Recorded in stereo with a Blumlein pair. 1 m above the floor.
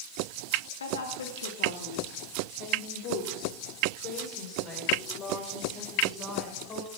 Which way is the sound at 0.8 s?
70° left.